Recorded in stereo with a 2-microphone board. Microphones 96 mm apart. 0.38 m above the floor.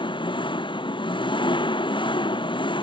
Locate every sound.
0.0 s an engine running: 60° left (ahead or behind)